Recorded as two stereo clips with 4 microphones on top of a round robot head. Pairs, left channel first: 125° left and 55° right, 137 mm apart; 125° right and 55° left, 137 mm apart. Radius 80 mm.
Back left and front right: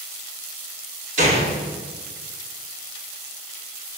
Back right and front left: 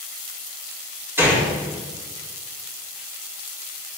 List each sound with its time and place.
1.2 s a gunshot: 20° right, 5 m